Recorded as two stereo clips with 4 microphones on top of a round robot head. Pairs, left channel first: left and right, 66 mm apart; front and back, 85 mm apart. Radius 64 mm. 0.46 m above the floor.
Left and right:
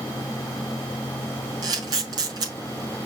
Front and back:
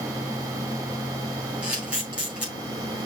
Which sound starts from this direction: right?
A camera shutter, at 1.6 s.